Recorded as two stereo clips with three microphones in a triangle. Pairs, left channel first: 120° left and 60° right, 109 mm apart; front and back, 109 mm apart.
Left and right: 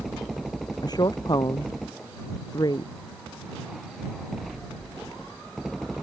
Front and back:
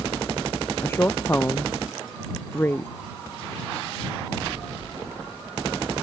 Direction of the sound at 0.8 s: 70° left.